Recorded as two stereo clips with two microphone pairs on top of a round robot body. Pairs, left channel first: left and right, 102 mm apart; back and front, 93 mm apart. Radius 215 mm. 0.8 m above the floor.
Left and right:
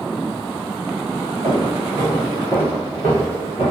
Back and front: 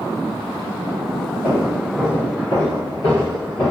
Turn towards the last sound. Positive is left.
turn(degrees=100)